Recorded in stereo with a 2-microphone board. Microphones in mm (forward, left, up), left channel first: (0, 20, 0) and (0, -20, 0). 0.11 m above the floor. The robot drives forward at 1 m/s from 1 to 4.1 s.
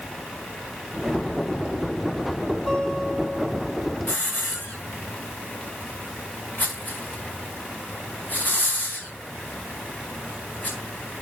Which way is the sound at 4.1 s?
45° left (ahead or behind).